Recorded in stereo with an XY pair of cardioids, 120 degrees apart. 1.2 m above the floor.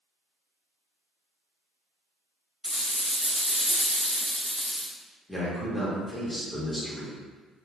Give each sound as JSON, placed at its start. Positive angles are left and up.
{"t": 2.6, "sound": "a rattle", "azimuth_deg": 5, "distance_m": 0.5}
{"t": 5.3, "sound": "a man speaking", "azimuth_deg": 10, "distance_m": 1.0}